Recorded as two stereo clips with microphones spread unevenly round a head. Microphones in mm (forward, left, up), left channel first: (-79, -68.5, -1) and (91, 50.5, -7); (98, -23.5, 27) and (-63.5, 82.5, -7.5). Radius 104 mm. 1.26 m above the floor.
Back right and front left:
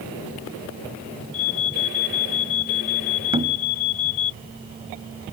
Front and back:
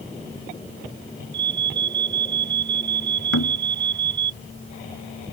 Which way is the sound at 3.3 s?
30° right.